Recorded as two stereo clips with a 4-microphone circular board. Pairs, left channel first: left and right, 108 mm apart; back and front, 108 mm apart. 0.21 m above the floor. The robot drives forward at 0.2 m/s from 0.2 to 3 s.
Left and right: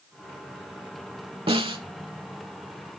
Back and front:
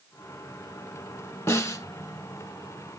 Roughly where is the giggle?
I don't hear a giggle.